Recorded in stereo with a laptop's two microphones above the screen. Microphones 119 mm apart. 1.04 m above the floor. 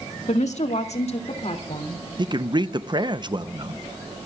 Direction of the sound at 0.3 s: 85° left.